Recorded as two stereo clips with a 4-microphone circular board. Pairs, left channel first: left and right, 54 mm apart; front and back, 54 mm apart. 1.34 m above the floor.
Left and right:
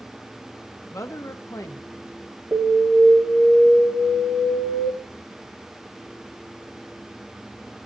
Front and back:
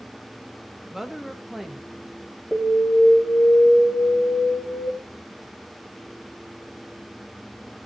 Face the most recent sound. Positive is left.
turn(degrees=-90)